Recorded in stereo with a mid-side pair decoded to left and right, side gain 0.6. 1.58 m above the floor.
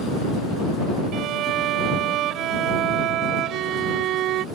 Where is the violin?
65° right.